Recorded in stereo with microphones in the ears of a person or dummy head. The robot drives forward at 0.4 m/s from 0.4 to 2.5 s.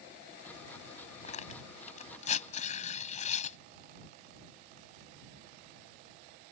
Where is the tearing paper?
40° left (ahead or behind); by 3.6 s 45° left (ahead or behind).